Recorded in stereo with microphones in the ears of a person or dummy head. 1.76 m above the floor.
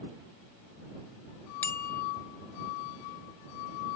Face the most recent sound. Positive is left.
turn(degrees=10)  # may be behind; listen again after turning